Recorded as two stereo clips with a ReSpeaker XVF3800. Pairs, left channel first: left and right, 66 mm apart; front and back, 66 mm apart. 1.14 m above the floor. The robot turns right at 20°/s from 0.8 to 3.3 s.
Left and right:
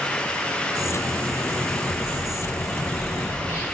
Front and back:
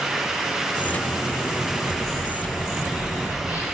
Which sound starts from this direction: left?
A bird, at 1.6 s.